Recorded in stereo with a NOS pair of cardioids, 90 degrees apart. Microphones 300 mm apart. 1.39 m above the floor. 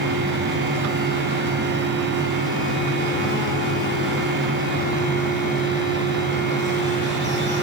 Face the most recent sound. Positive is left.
turn(degrees=-40)